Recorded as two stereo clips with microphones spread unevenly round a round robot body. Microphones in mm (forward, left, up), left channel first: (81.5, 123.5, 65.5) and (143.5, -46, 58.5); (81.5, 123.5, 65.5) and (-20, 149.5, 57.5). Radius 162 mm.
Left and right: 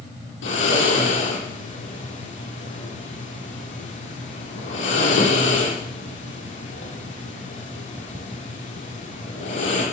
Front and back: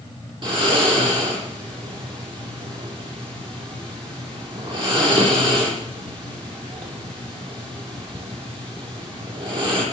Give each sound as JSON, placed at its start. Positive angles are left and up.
{"t": 0.4, "sound": "snoring", "azimuth_deg": 130, "distance_m": 8.5}